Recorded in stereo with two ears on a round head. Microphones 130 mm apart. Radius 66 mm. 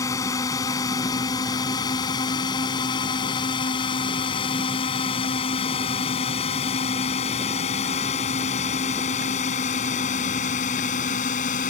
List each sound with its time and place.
0.0 s a drone: 20° left (ahead or behind); by 11.7 s 55° left (ahead or behind)